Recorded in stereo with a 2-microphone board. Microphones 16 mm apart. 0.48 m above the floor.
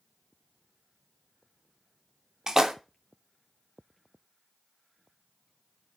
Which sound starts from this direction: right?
A splash, at 2.5 s.